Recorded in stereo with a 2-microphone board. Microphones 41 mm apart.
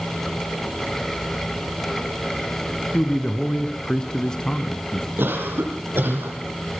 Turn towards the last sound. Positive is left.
turn(degrees=-65)  # may be behind; listen again after turning